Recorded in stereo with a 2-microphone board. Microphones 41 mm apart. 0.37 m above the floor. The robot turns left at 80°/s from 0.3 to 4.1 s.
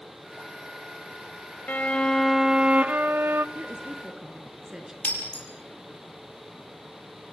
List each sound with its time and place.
1.7 s a violin: 50° left, 0.9 m; by 3.5 s 95° right, 0.9 m
3.5 s a woman speaking: 125° right, 4.5 m; by 4.9 s 170° right, 4.5 m
5.0 s breaking glass: 40° left (ahead or behind), 6.5 m